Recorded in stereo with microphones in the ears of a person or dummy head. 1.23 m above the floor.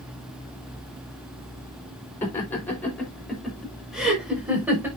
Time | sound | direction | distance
2.2 | laughter | 10° left (ahead or behind) | 4.5 m